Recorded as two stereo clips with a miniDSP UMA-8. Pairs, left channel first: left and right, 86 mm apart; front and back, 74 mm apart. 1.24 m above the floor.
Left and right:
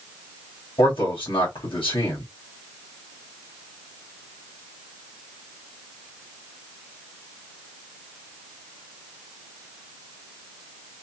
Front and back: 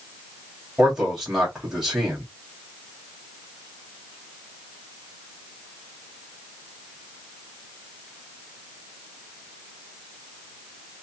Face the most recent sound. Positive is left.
turn(degrees=95)